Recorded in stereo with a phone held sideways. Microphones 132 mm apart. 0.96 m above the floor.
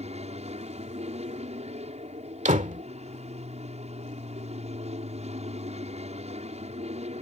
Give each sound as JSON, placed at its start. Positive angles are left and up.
{"t": 0.0, "sound": "an aircraft", "side_deg": -60}
{"t": 2.5, "sound": "a door slam", "side_deg": -75}